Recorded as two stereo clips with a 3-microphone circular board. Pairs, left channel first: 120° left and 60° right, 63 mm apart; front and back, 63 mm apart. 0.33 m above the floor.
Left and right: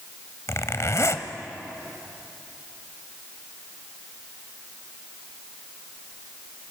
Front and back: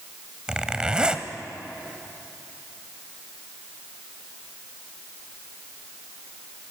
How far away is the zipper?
About 1.1 m.